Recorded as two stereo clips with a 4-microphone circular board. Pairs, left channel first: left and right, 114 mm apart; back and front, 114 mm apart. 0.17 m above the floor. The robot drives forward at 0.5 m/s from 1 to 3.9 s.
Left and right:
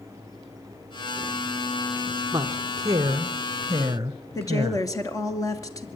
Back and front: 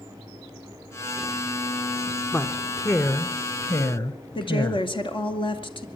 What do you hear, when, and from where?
2.3 s a woman speaking: 120° right, 1.4 m; by 4.8 s 145° right, 1.8 m
4.3 s a woman speaking: 145° left, 2.5 m